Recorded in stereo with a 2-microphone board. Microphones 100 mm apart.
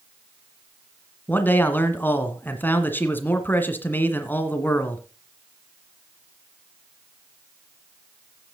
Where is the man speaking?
20° left (ahead or behind), 1.6 m.